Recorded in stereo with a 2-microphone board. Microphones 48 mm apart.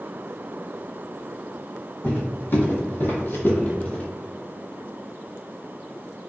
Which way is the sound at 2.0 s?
45° left (ahead or behind).